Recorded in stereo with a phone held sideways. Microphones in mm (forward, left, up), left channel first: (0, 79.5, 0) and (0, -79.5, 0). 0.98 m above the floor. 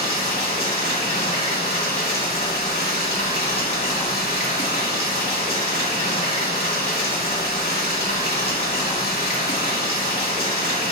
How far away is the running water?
About 1.9 m.